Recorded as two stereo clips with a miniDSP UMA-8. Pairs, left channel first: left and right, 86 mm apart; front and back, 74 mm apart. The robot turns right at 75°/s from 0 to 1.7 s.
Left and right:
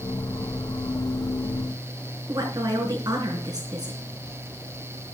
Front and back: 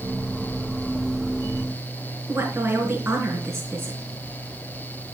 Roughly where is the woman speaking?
Behind right.